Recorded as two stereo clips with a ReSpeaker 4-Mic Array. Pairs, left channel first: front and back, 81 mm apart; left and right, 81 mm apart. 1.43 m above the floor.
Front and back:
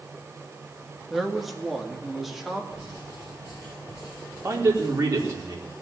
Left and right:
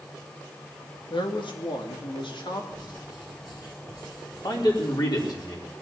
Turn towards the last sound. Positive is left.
turn(degrees=125)